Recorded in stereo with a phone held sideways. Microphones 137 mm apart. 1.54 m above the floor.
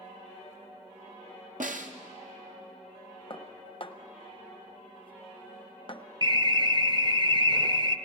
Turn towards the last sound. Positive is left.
turn(degrees=-35)  # may be behind; listen again after turning